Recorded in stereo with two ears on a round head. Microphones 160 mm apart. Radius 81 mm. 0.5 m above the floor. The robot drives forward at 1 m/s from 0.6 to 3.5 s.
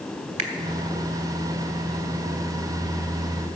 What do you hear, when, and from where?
0.4 s a finger snap: 40° right (ahead or behind), 1.6 m